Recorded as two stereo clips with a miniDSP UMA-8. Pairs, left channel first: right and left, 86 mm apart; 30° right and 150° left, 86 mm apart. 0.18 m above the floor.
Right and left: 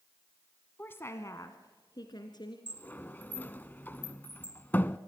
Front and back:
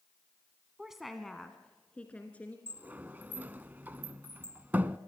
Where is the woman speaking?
135° right, 1.2 m; by 2.6 s 100° right, 2 m.